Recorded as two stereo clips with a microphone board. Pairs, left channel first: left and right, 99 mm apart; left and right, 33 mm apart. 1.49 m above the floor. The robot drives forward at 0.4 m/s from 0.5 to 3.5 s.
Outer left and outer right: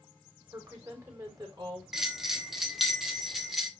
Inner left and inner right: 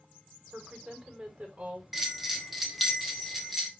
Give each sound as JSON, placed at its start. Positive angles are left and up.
{"t": 0.5, "sound": "a woman speaking", "side_deg": -35, "distance_m": 5.5}
{"t": 1.9, "sound": "a bell", "side_deg": -5, "distance_m": 1.6}